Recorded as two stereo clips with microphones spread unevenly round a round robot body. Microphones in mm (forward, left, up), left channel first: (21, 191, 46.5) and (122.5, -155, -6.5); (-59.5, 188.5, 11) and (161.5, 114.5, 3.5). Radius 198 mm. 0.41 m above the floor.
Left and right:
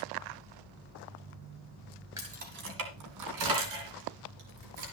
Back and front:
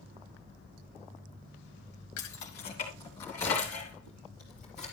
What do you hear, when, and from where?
2.2 s keys jangling: 155° right, 1.3 m; by 4.8 s 105° right, 4.5 m